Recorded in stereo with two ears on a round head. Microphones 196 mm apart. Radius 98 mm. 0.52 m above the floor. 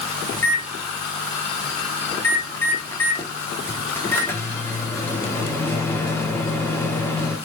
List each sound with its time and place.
0.3 s a microwave: 10° left (ahead or behind), 0.7 m